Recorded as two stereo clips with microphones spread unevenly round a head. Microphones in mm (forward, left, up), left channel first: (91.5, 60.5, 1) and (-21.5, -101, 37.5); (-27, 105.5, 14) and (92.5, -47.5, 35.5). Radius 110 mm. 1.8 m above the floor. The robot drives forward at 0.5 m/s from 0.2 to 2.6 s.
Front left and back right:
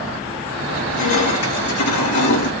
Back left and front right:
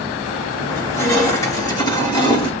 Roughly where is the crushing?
Ahead left.